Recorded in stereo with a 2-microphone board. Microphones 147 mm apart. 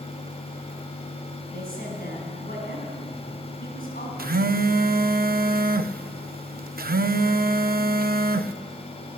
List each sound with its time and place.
1.5 s a woman speaking: 80° left, 5 m
4.2 s a phone buzzing: 80° right, 0.6 m